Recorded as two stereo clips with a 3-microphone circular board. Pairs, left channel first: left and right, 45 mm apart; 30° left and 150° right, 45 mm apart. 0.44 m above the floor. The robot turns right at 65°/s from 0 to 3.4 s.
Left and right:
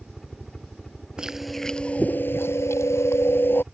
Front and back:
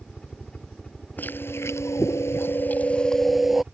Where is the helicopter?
5° right; by 3.7 s 145° right.